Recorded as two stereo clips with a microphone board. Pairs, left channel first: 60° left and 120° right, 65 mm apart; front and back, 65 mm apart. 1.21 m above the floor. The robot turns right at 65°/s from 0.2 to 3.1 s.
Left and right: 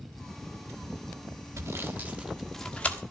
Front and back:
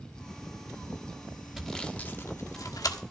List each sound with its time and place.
1.6 s sawing: 95° right, 1.3 m; by 3.0 s straight ahead, 1.3 m